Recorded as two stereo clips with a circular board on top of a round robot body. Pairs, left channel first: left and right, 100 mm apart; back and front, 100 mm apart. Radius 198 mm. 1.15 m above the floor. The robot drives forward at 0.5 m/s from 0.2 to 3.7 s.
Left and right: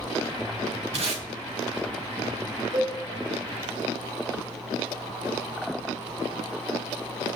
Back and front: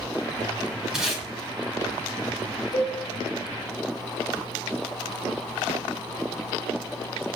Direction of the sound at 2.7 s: 150° right.